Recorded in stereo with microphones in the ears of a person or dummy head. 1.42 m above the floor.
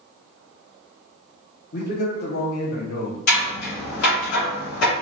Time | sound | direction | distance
1.7 | a man speaking | 55° left (ahead or behind) | 1.1 m
3.3 | scissors | 60° left (ahead or behind) | 2.0 m